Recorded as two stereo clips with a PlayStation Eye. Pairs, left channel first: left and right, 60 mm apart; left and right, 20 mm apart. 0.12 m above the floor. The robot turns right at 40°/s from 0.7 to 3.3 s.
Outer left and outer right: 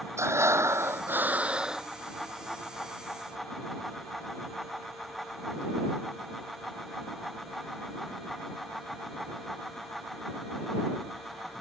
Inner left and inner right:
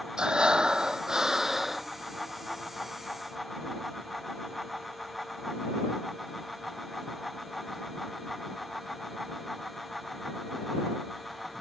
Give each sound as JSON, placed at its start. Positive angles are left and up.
{"t": 0.2, "sound": "breathing", "azimuth_deg": -55}